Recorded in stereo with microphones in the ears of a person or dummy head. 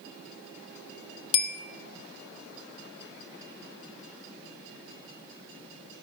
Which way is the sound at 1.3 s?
35° left (ahead or behind).